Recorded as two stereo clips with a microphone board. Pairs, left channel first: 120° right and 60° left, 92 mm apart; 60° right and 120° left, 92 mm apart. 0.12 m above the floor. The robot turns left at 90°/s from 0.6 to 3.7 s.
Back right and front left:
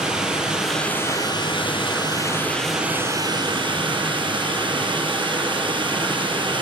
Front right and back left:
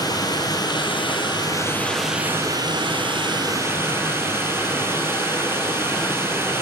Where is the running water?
20° right, 1.4 m; by 6.6 s 60° left, 1.4 m.